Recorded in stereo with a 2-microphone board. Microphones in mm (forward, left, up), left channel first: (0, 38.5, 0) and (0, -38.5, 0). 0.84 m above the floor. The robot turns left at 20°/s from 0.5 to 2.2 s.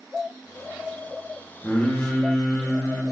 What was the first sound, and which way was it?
Singing, 25° left (ahead or behind).